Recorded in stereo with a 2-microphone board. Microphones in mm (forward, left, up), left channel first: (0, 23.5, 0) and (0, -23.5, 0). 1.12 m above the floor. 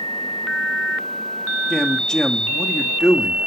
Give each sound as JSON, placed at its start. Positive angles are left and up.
{"t": 1.7, "sound": "a man speaking", "side_deg": 10, "distance_m": 2.0}